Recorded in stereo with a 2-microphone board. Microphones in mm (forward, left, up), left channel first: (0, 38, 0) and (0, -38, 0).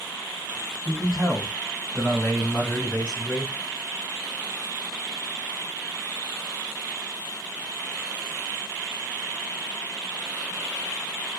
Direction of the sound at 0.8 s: 15° right (ahead or behind).